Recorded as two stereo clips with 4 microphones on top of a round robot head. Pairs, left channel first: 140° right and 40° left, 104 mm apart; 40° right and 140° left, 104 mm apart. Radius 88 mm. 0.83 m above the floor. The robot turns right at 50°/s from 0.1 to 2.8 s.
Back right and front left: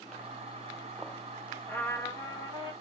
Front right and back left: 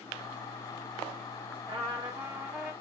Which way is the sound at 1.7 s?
155° left.